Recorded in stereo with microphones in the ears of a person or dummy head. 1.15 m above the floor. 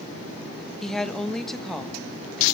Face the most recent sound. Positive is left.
turn(degrees=0)  # may be behind; listen again after turning